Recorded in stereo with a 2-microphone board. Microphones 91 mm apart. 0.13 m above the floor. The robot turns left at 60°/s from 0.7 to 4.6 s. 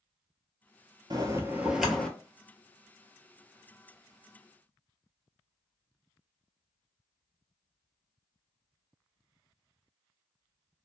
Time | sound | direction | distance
1.1 | a bell | 130° right | 0.5 m